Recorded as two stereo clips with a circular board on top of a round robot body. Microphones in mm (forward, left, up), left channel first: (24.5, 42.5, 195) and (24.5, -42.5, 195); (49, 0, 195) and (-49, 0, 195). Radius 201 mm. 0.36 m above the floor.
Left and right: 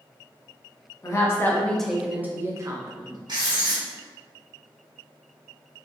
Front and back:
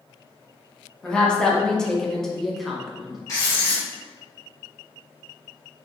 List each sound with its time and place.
1.0 s a woman speaking: 75° left, 1.1 m; by 3.2 s 90° right, 1.4 m
3.3 s writing: 60° right, 1.8 m